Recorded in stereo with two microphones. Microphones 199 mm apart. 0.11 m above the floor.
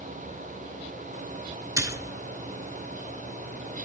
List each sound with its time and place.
1.8 s a splash: 15° right (ahead or behind), 0.5 m